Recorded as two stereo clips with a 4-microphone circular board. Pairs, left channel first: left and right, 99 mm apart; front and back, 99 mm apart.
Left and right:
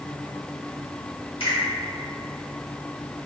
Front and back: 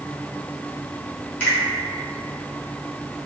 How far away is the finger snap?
About 1.6 m.